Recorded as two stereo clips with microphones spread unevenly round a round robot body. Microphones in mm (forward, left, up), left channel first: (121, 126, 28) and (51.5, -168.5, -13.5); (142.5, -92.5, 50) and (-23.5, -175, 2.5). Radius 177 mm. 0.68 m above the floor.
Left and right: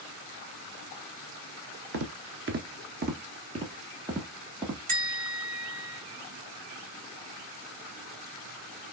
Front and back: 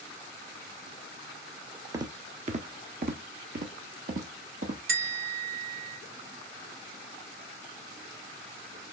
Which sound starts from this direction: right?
Footsteps, at 1.9 s.